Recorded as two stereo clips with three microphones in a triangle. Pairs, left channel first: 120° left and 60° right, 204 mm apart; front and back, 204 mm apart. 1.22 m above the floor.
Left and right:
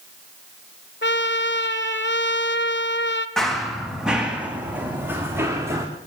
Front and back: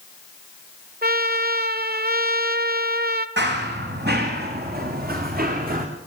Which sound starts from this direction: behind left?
A trumpet, at 1.0 s.